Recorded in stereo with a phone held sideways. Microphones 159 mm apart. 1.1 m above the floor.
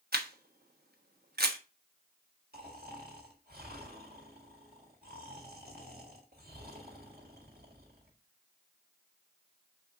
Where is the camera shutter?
80° right, 1.0 m.